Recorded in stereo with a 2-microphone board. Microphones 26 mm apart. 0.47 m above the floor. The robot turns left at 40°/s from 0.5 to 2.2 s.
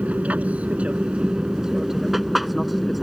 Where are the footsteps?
I don't hear footsteps.